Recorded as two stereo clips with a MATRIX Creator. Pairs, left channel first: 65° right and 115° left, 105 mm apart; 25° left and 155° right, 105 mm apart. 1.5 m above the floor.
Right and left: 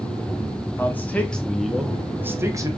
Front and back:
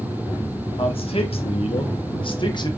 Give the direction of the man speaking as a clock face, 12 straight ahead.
12 o'clock.